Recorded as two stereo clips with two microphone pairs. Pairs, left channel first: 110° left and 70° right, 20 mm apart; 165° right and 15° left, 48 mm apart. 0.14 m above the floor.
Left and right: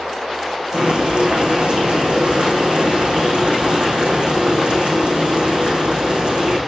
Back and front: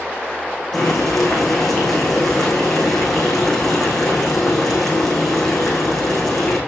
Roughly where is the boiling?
Right.